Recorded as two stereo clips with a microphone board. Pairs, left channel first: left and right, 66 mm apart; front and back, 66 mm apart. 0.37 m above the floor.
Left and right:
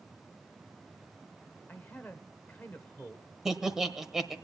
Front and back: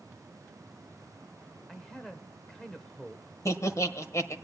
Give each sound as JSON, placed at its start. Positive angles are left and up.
{"t": 1.7, "sound": "a man speaking", "azimuth_deg": 70, "distance_m": 1.1}
{"t": 3.5, "sound": "laughter", "azimuth_deg": -10, "distance_m": 1.2}